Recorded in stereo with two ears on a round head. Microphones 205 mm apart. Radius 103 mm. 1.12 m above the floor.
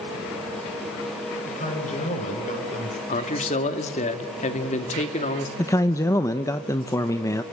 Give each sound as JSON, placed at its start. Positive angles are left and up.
{"t": 1.4, "sound": "a man speaking", "side_deg": 30, "distance_m": 5.0}
{"t": 3.1, "sound": "a man speaking", "side_deg": 30, "distance_m": 2.0}
{"t": 5.6, "sound": "a man speaking", "side_deg": 15, "distance_m": 0.8}